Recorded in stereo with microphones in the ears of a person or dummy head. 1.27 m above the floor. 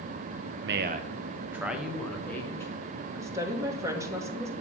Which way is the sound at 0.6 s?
55° right (ahead or behind).